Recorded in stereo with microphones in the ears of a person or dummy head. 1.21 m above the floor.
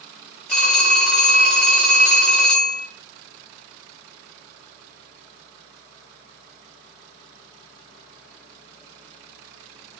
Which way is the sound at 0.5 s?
5° left (ahead or behind).